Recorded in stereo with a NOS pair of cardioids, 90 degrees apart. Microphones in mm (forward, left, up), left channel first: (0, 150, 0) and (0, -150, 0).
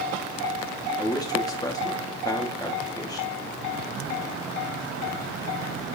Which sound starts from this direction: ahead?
A man speaking, at 1.0 s.